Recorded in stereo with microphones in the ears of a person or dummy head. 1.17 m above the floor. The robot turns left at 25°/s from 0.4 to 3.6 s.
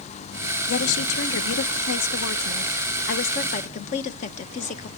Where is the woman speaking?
110° left, 0.8 m; by 4.9 s 40° left, 0.8 m.